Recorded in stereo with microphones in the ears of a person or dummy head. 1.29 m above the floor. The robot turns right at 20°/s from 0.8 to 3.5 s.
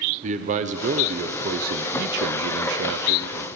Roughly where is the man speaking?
Behind right.